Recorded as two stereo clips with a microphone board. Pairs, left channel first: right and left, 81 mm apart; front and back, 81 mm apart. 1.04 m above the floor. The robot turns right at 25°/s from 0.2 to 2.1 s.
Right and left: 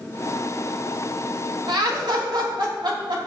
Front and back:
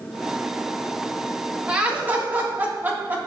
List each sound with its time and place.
1.7 s laughter: 105° left, 2 m; by 3.3 s 115° left, 2 m